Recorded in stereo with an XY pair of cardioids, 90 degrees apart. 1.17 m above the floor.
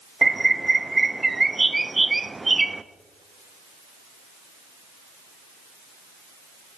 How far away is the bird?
About 0.6 m.